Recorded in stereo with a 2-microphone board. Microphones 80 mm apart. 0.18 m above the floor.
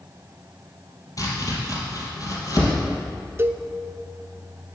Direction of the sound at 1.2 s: 45° left (ahead or behind).